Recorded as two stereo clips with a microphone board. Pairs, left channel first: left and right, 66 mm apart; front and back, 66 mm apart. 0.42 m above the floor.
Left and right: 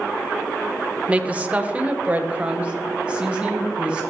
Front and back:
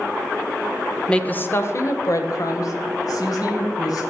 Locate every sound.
1.1 s a woman speaking: 55° right, 0.8 m; by 4.0 s 15° right, 3 m